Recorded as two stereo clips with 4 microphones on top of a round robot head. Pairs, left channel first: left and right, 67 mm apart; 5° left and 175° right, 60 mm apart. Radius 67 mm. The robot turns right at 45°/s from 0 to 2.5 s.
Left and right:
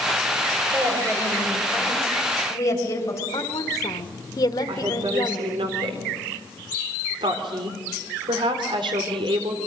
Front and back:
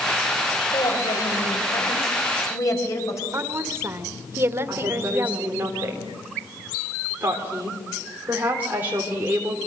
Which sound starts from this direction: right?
A woman speaking, at 4.7 s.